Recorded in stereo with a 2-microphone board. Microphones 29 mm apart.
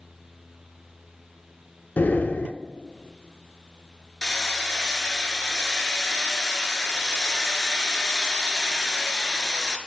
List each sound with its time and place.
2.0 s breathing: 80° left, 0.5 m
4.2 s hammering: 20° left (ahead or behind), 0.8 m